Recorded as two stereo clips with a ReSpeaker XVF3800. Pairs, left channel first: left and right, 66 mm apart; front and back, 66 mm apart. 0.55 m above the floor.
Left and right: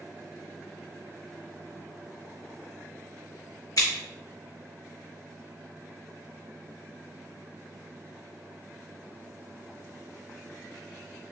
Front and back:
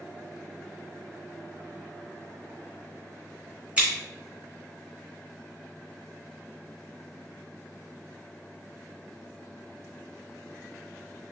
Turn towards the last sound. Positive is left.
turn(degrees=110)